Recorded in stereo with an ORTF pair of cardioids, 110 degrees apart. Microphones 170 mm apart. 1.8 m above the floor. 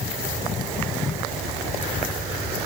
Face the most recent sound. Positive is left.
No sound to turn to.